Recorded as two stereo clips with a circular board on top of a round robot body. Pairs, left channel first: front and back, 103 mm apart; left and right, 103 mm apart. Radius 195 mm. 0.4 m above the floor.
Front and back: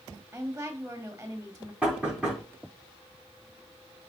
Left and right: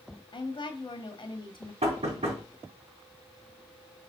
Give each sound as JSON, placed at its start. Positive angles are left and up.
{"t": 0.3, "sound": "a woman speaking", "azimuth_deg": 110, "distance_m": 1.6}
{"t": 1.8, "sound": "knocking", "azimuth_deg": -95, "distance_m": 3.5}